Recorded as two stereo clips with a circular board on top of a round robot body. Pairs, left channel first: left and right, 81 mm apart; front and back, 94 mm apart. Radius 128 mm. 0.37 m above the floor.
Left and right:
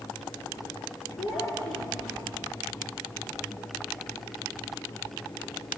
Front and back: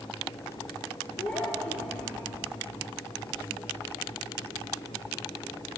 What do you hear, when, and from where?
1.2 s a child speaking: 70° left, 8 m